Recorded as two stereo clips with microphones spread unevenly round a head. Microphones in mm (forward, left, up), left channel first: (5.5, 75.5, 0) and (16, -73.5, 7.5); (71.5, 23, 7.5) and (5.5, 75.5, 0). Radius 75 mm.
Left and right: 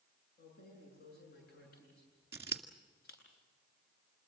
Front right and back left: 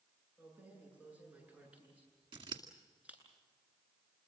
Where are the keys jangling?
70° left, 8.5 m.